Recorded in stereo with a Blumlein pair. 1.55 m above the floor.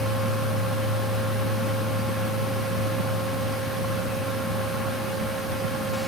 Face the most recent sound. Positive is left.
turn(degrees=0)